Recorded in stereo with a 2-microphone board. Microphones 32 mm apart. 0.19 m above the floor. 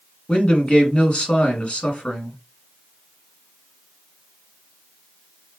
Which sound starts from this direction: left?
A man speaking, at 0.3 s.